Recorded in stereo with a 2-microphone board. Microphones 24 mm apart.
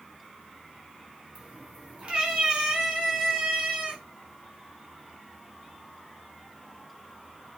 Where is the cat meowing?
50° right (ahead or behind), 4 m.